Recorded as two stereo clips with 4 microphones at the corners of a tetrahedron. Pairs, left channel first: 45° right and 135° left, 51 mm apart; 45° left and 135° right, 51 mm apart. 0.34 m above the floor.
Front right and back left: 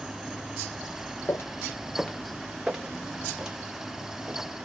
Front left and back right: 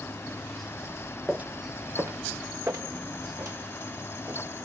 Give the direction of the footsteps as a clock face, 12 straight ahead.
2 o'clock.